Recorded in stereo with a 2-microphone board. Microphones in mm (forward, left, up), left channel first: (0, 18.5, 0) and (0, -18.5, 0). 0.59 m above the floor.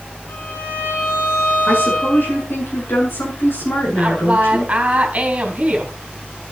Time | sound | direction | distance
0.3 | a violin | 55° left (ahead or behind) | 9 m
1.7 | a woman speaking | 70° left (ahead or behind) | 8 m
4.0 | a woman speaking | 35° right (ahead or behind) | 3.5 m